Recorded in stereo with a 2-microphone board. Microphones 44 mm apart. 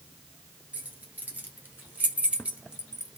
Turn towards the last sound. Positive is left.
turn(degrees=-10)  # may be behind; listen again after turning